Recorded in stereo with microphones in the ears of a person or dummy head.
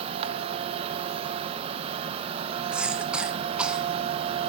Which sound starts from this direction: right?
A machine running, at 0.0 s.